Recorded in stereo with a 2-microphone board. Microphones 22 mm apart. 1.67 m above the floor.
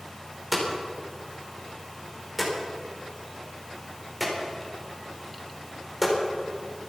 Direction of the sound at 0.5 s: Centre (ahead or behind).